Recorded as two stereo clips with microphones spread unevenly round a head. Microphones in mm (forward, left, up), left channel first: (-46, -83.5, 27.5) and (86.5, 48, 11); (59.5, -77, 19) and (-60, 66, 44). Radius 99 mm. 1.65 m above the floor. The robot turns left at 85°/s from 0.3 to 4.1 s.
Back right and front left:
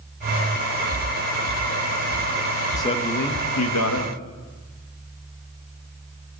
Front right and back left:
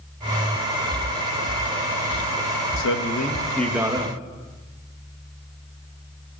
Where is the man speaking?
60° right, 3 m; by 4.2 s 175° right, 3 m.